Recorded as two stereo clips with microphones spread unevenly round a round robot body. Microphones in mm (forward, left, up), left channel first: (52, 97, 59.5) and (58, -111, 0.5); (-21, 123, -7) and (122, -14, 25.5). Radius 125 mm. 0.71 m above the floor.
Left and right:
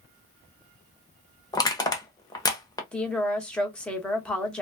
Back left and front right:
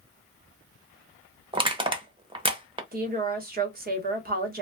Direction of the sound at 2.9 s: Straight ahead.